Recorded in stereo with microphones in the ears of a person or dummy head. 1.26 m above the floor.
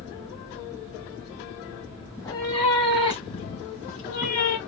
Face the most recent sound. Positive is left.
turn(degrees=45)  # may be behind; listen again after turning